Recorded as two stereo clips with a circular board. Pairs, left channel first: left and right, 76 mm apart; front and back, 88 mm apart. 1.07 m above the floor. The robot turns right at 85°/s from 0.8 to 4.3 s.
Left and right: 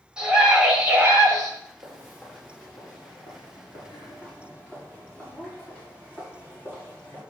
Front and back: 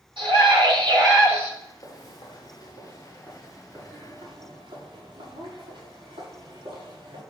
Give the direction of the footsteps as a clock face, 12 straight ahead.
2 o'clock.